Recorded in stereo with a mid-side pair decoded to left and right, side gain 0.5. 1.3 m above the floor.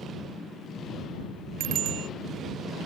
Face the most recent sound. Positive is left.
turn(degrees=-65)